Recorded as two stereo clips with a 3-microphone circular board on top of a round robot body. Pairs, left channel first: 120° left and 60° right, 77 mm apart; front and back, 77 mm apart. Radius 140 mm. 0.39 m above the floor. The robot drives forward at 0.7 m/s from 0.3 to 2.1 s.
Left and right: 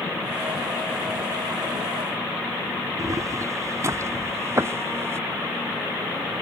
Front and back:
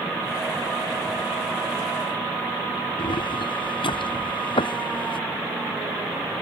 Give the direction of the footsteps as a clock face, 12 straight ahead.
12 o'clock.